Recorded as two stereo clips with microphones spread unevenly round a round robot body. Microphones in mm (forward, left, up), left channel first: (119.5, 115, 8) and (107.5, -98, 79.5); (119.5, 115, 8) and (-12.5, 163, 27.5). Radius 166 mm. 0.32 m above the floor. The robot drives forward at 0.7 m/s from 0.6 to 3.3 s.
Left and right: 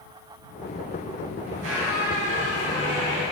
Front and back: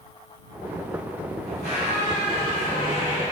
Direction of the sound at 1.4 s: 145° right.